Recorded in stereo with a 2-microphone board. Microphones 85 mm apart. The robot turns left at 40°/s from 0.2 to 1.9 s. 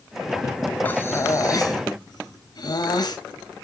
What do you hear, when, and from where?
0.8 s breathing: 155° left, 2 m; by 3.2 s 115° left, 2 m